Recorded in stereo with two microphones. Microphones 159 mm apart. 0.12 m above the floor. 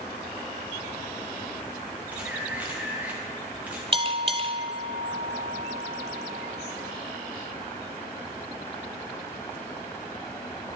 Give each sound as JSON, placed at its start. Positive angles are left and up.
{"t": 2.1, "sound": "a camera shutter", "side_deg": -10, "distance_m": 2.5}
{"t": 3.9, "sound": "a bell", "side_deg": -35, "distance_m": 0.6}